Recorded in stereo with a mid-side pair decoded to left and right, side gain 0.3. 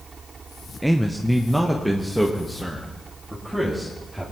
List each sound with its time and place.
0.8 s a man speaking: 5° right, 0.8 m